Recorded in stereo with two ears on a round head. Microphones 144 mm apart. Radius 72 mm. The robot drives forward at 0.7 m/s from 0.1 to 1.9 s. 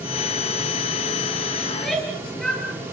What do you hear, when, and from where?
1.7 s a shout: centre (ahead or behind), 9.5 m